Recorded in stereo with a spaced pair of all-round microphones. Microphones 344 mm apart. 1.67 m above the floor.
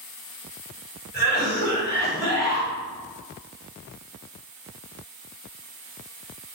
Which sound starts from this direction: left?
A cough, at 1.1 s.